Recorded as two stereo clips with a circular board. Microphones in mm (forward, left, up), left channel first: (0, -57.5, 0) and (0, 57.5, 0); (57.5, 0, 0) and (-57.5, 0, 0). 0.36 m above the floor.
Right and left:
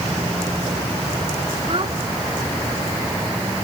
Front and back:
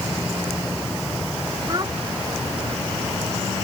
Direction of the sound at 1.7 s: 125° left.